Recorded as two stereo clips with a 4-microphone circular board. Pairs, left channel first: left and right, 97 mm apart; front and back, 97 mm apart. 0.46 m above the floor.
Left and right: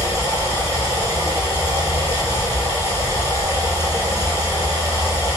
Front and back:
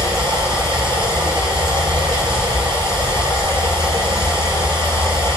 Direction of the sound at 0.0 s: 155° right.